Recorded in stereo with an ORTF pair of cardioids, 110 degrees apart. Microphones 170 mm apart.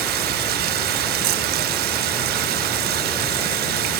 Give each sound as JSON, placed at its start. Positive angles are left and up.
{"t": 0.0, "sound": "running water", "azimuth_deg": -70, "distance_m": 1.0}